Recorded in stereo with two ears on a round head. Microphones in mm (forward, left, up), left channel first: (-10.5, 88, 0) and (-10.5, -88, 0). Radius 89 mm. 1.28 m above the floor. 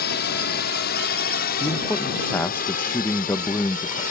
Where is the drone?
55° left (ahead or behind); by 4.1 s 45° left (ahead or behind).